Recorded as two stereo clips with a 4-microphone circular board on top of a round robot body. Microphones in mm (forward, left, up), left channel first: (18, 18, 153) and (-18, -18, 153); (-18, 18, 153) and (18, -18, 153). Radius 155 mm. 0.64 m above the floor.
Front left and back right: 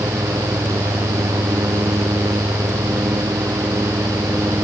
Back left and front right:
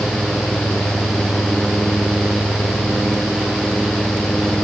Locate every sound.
Only background noise.